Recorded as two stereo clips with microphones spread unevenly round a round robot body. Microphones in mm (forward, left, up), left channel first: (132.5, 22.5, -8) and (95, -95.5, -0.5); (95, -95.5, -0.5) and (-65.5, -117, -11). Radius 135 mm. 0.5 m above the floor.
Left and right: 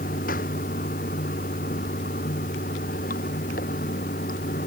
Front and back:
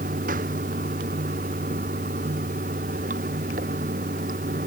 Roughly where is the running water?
Behind left.